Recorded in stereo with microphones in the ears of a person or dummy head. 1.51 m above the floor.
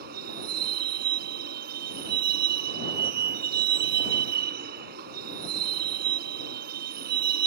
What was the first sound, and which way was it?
A vehicle, 60° right (ahead or behind).